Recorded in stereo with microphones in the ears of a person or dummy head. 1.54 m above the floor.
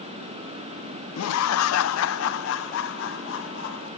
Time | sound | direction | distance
1.2 | laughter | 80° left | 0.6 m